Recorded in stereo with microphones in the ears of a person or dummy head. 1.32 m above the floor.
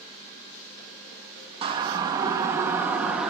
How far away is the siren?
About 2.5 m.